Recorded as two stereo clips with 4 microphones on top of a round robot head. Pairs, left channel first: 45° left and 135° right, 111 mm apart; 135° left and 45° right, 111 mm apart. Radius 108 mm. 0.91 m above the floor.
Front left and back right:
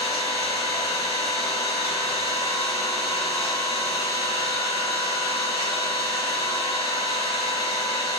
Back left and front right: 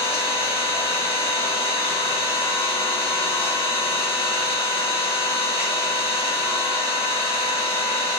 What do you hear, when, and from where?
0.0 s an engine running: 85° left, 1.2 m